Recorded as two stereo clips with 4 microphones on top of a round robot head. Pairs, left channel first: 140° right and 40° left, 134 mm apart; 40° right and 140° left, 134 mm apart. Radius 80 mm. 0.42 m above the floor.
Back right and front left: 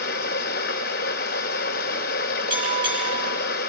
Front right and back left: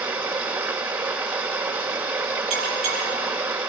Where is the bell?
100° left, 7.5 m.